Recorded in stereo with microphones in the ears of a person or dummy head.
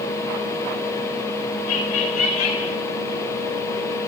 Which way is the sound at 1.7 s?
80° left.